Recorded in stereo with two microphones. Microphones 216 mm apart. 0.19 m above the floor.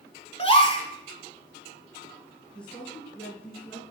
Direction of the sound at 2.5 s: 5° left (ahead or behind).